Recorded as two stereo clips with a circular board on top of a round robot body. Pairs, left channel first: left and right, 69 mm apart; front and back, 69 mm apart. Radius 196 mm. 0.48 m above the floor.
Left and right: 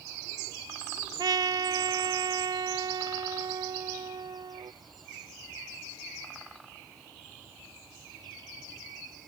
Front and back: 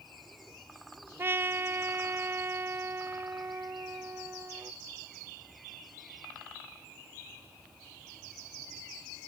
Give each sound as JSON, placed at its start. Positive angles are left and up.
{"t": 1.2, "sound": "a trumpet", "azimuth_deg": -120}